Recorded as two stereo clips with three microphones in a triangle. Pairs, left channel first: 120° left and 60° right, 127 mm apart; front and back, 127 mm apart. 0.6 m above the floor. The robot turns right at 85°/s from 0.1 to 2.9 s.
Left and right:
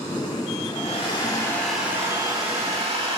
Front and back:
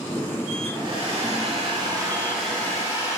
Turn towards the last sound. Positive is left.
turn(degrees=-50)